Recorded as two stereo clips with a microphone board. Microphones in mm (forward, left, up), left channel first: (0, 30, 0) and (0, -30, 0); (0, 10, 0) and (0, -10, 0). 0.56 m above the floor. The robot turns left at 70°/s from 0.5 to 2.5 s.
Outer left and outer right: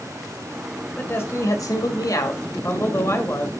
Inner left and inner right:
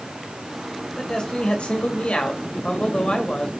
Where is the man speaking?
155° left, 2 m; by 3.5 s 45° left, 2 m.